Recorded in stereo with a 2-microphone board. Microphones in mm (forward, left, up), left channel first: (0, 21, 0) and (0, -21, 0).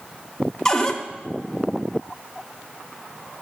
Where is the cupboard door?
15° left (ahead or behind), 0.9 m.